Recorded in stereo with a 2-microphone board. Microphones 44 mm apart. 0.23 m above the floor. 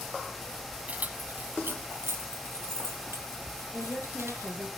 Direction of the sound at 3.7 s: 30° right (ahead or behind).